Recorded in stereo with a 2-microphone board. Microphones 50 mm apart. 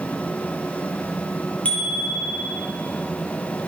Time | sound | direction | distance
1.6 | a bicycle bell | 25° left (ahead or behind) | 4.5 m